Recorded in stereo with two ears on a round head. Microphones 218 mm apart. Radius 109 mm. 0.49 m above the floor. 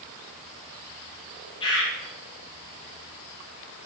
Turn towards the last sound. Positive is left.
turn(degrees=25)  # may be behind; listen again after turning